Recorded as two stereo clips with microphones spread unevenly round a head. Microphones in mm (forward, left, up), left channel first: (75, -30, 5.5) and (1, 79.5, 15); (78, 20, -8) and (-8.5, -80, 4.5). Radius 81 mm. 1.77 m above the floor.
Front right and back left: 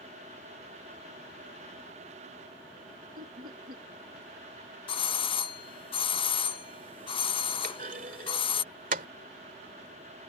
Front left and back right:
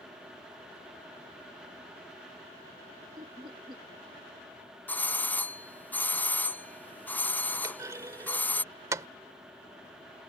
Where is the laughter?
165° left.